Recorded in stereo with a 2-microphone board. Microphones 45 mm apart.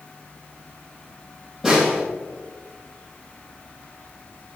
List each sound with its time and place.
1.6 s a snare drum: 5° right (ahead or behind), 3 m